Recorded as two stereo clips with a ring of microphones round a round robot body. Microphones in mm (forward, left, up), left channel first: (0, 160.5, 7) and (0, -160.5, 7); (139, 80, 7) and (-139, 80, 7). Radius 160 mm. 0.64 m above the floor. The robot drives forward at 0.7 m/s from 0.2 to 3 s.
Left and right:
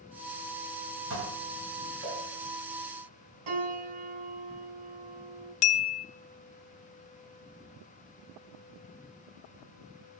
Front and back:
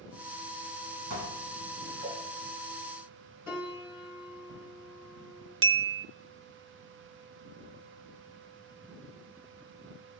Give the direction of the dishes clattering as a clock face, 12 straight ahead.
5 o'clock.